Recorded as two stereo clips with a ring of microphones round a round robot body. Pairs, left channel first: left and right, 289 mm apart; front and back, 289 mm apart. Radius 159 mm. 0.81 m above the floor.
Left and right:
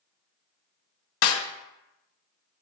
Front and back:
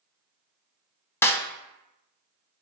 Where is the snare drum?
80° left, 0.9 m.